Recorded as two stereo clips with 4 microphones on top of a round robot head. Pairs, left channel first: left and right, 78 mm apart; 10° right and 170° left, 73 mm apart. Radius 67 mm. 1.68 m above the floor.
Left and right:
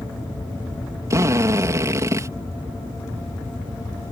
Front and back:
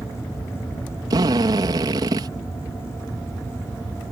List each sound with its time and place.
1.1 s a drill: 140° right